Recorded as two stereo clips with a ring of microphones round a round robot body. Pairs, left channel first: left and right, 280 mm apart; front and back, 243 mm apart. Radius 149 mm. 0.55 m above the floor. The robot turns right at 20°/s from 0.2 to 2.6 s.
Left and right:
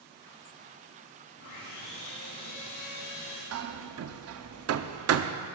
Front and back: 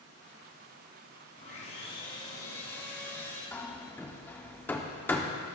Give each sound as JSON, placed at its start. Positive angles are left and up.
{"t": 1.4, "sound": "sawing", "azimuth_deg": 55, "distance_m": 5.0}
{"t": 3.5, "sound": "hammering", "azimuth_deg": -80, "distance_m": 0.7}